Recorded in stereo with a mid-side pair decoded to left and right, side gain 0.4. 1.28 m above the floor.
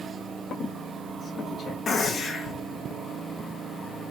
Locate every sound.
0.5 s a squeak: 60° left, 1.2 m
1.9 s a gunshot: 55° left, 1.1 m